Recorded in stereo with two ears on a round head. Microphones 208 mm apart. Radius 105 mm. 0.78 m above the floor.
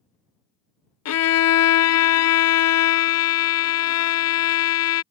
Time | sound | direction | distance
1.1 | a violin | 70° left (ahead or behind) | ?